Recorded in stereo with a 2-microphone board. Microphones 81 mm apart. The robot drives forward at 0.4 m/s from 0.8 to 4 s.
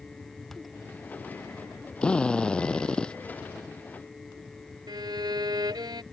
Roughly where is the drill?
Centre.